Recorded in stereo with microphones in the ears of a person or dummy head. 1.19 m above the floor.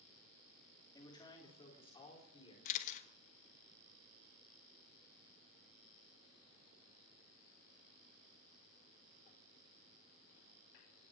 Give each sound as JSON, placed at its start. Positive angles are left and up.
{"t": 0.9, "sound": "a man speaking", "side_deg": 15, "distance_m": 2.5}
{"t": 2.6, "sound": "a camera shutter", "side_deg": 50, "distance_m": 1.5}